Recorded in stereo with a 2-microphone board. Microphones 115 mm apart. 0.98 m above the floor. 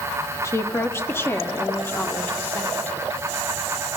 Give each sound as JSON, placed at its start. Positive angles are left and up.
{"t": 0.4, "sound": "a woman speaking", "side_deg": 25, "distance_m": 2.0}